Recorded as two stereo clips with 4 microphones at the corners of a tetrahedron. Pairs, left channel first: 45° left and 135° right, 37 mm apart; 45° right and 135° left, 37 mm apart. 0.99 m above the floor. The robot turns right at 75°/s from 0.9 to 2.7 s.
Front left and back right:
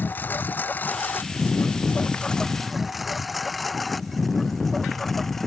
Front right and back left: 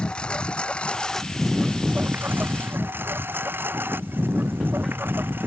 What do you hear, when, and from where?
0.0 s a lawn mower: 15° left; by 5.5 s 130° left